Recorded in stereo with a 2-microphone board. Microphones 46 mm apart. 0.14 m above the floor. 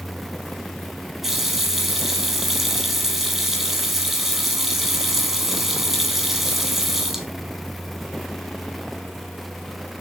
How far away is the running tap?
About 2.5 m.